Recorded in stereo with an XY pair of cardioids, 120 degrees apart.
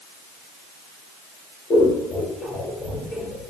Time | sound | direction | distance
1.7 | scissors | 40° left | 2 m